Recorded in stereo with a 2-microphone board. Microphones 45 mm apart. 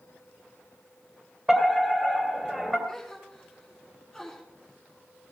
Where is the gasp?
10° left (ahead or behind), 3.5 m.